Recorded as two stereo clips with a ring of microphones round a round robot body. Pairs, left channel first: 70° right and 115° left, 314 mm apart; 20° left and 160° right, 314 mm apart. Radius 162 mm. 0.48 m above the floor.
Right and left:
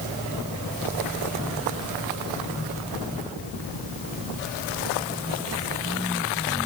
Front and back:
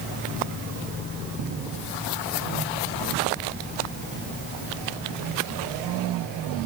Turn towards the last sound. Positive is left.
No sound to turn to.